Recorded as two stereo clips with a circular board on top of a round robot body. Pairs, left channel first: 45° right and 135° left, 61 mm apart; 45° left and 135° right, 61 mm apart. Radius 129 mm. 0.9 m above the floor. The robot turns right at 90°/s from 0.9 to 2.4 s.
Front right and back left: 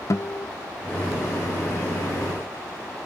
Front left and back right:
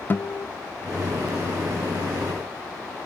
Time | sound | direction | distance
0.1 | a guitar | 10° right | 0.8 m